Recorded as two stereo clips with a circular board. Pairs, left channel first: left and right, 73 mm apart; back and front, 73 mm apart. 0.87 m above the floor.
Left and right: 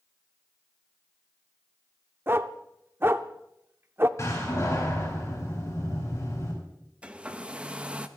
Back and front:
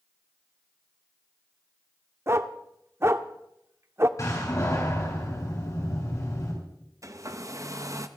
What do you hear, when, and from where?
2.3 s a dog barking: 40° right, 0.6 m
4.2 s a door slam: 140° left, 7.5 m
7.0 s a hair dryer: 20° right, 0.8 m